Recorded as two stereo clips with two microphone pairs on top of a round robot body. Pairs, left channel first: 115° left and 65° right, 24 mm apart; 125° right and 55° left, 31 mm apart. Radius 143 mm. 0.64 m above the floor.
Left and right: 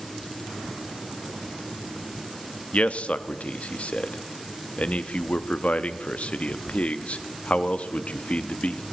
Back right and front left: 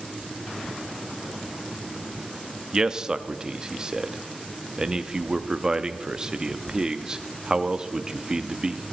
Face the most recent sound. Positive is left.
turn(degrees=125)